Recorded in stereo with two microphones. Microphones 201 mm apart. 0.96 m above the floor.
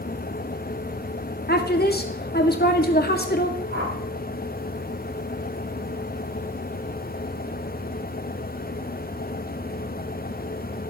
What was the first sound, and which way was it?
A woman speaking, 50° left (ahead or behind).